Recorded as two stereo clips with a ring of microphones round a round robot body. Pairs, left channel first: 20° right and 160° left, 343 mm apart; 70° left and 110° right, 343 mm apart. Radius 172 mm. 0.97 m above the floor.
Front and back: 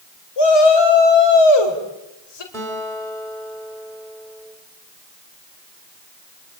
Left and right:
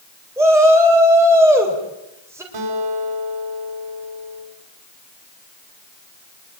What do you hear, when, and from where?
0.4 s a shout: 30° right, 4 m
2.5 s a guitar: 105° right, 6 m